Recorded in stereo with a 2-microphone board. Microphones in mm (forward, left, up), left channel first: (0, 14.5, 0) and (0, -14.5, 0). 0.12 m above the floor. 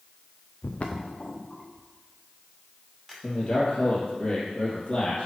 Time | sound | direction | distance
0.6 | footsteps | 60° left (ahead or behind) | 0.9 m
3.2 | a man speaking | 35° left (ahead or behind) | 2 m